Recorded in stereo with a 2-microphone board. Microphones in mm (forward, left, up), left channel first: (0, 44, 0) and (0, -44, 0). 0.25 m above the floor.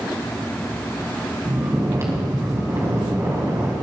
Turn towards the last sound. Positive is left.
turn(degrees=-35)  # may be behind; listen again after turning